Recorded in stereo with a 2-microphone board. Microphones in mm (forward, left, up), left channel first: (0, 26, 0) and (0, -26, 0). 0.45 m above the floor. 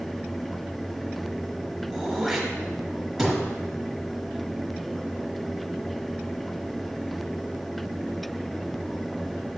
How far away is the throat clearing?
About 1.3 m.